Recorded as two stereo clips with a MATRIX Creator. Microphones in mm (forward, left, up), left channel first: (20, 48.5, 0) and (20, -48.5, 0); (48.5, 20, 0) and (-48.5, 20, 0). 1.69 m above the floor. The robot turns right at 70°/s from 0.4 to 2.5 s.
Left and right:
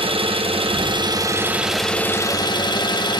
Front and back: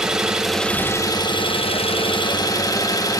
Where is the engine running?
95° right, 1.3 m; by 3.2 s 50° left, 1.3 m.